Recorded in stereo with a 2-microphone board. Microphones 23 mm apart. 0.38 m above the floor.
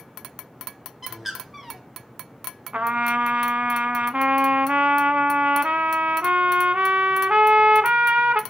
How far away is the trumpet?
About 0.7 m.